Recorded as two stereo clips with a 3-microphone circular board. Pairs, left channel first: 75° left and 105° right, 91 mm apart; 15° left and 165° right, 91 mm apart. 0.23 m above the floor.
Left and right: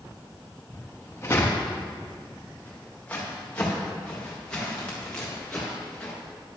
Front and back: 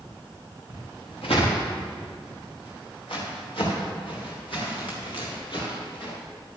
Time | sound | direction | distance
0.7 | footsteps | 15° left | 3.5 m